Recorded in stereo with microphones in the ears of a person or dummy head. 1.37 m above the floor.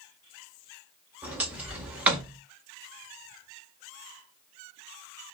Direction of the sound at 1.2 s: 5° right (ahead or behind).